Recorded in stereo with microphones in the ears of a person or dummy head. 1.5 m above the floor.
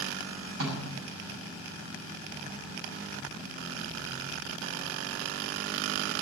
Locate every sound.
0.6 s a snare drum: 80° right, 6 m